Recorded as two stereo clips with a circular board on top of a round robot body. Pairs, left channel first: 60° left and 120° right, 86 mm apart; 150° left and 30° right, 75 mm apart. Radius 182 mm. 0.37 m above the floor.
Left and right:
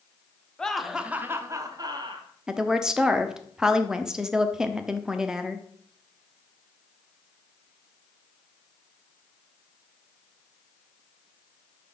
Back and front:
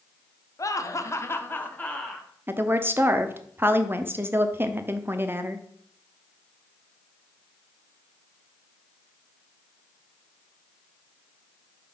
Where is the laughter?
140° left, 1.8 m; by 2.3 s 130° right, 2.5 m.